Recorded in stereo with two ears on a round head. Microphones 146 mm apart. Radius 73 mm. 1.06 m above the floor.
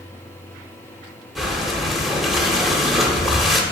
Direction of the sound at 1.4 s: Centre (ahead or behind).